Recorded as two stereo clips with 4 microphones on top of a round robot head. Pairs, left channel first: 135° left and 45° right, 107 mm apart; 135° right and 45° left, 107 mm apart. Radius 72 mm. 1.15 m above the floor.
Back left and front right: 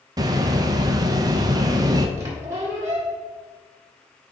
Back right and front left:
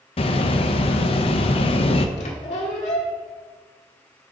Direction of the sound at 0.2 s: 100° right.